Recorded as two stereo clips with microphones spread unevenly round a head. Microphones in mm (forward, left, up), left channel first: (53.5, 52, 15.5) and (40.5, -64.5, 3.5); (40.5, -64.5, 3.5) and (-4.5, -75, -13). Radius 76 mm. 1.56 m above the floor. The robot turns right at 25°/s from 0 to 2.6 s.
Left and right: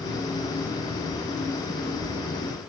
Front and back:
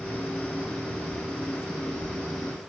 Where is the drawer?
No drawer in this recording.